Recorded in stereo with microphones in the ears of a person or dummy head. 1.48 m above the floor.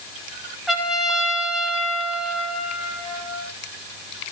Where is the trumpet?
Centre (ahead or behind), 1.6 m.